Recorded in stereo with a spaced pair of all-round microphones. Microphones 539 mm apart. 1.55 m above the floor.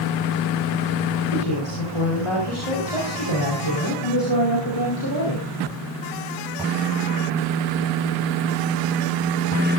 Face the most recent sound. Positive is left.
turn(degrees=35)  # may be behind; listen again after turning